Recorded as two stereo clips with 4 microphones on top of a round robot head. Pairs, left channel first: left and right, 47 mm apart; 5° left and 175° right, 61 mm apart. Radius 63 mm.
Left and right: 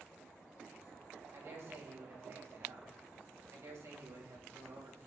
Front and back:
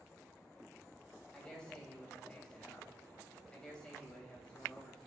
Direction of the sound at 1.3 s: 75° right.